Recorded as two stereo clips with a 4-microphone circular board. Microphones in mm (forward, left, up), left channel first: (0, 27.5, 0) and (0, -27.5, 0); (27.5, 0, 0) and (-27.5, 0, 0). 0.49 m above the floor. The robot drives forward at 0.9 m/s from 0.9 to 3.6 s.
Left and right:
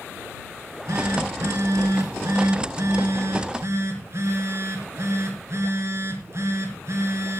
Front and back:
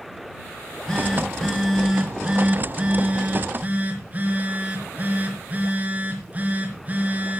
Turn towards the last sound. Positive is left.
turn(degrees=-120)